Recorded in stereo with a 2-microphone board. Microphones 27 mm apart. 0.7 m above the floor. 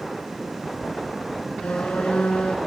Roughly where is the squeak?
Left.